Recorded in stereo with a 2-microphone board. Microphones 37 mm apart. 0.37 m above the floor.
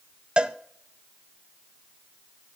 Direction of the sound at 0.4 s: 25° right (ahead or behind).